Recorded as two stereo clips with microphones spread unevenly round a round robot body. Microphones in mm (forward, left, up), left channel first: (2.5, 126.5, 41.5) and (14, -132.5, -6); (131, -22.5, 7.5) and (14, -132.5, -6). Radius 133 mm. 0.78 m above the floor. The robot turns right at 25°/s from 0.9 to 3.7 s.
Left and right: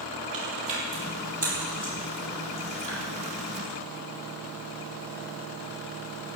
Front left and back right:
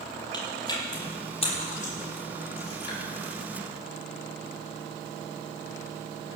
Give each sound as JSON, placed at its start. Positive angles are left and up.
{"t": 0.3, "sound": "chewing", "azimuth_deg": -20, "distance_m": 8.5}